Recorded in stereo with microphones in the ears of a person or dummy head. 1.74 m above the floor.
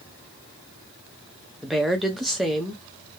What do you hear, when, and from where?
1.6 s a woman speaking: centre (ahead or behind), 0.9 m